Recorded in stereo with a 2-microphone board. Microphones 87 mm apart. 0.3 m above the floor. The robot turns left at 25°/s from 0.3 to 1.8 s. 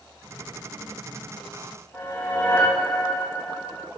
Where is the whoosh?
25° left (ahead or behind), 6 m.